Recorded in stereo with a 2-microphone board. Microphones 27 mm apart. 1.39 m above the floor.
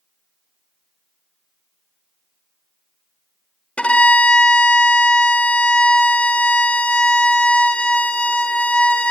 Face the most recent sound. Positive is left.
turn(degrees=55)  # may be behind; listen again after turning